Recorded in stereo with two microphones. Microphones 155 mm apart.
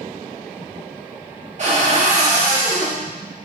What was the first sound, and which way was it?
A cupboard door, 50° right (ahead or behind).